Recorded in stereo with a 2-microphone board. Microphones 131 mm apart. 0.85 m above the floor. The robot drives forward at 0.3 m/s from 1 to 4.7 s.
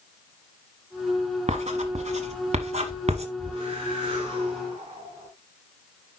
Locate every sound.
1.5 s writing: 60° right (ahead or behind), 1.3 m
3.4 s a whoosh: 45° right (ahead or behind), 4.5 m; by 5.3 s 40° right (ahead or behind), 5 m